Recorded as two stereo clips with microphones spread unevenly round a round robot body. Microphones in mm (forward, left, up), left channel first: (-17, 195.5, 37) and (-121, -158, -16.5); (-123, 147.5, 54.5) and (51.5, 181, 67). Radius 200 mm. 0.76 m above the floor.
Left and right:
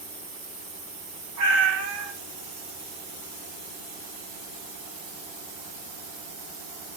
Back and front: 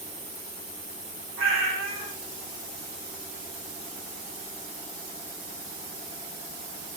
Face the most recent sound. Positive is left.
turn(degrees=-45)